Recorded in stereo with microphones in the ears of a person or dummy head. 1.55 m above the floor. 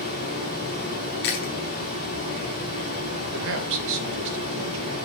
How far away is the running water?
About 3.5 m.